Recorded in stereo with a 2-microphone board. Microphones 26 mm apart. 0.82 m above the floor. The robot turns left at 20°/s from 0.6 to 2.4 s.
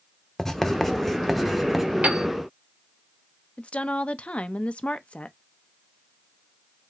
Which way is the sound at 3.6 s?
55° left (ahead or behind).